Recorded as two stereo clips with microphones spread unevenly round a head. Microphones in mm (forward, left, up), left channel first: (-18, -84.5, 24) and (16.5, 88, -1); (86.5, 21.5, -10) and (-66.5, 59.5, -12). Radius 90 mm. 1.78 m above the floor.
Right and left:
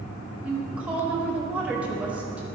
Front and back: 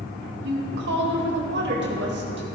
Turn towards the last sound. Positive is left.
turn(degrees=165)